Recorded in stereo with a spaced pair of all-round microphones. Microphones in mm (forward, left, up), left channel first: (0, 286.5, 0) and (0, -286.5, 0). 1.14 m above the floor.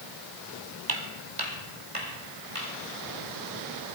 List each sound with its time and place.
0.9 s footsteps: 40° right (ahead or behind), 1.5 m; by 2.7 s 75° right (ahead or behind), 4 m